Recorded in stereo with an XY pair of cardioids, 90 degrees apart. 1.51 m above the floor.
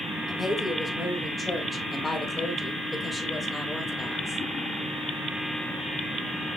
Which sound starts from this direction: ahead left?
A woman speaking, at 0.3 s.